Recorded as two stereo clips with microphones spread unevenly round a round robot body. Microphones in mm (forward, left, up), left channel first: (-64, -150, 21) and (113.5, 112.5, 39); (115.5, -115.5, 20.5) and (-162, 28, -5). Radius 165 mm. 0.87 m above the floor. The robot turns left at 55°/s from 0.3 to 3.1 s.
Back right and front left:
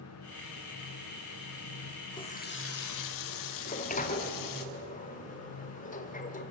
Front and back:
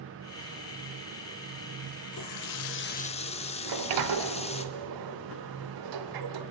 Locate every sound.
2.1 s a running tap: 45° right, 1.4 m; by 4.7 s 100° right, 1.4 m
3.6 s a sliding door: 165° left, 1.4 m